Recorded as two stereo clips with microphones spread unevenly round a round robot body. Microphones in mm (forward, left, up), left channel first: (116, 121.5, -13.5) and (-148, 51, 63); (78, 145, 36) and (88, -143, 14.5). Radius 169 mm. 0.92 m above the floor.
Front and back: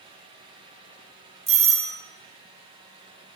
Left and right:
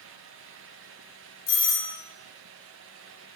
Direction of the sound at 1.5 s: 120° left.